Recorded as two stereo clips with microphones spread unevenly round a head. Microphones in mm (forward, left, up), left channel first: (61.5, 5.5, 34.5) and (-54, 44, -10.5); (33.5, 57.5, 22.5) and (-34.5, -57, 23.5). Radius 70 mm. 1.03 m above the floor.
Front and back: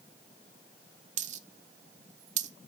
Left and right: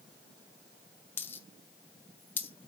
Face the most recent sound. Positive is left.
turn(degrees=130)